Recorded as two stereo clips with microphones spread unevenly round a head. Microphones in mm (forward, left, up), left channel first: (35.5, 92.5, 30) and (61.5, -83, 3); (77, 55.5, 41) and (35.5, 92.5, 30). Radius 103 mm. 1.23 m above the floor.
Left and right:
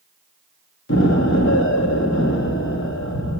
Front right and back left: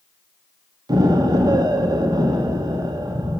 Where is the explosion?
135° left, 1.6 m.